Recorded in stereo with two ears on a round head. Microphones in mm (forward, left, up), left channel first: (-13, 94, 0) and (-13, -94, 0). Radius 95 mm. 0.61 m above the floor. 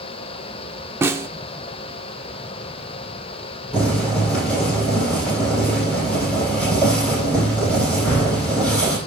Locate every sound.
1.0 s a snare drum: 10° right (ahead or behind), 0.9 m
3.7 s boiling: 5° left (ahead or behind), 9 m